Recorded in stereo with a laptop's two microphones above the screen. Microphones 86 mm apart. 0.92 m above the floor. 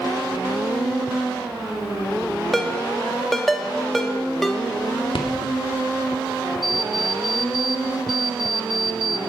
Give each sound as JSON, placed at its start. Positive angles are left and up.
{"t": 2.5, "sound": "a ringtone", "side_deg": 0, "distance_m": 1.1}
{"t": 5.1, "sound": "a rattle", "side_deg": 75, "distance_m": 1.8}
{"t": 6.6, "sound": "an alarm clock", "side_deg": 0, "distance_m": 1.3}